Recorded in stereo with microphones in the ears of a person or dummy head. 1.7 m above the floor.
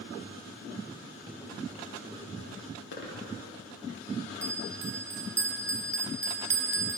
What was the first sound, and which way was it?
Footsteps, centre (ahead or behind).